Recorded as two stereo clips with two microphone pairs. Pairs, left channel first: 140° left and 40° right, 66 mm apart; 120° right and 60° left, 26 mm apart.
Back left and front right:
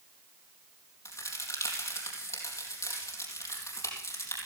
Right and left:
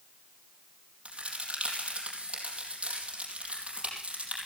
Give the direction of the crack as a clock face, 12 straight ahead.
8 o'clock.